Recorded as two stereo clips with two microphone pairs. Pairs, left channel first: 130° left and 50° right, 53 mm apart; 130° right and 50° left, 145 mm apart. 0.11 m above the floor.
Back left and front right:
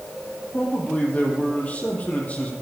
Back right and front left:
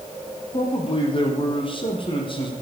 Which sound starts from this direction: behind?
A man speaking, at 0.5 s.